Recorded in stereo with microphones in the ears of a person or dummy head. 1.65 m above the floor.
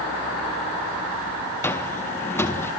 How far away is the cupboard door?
About 1.4 m.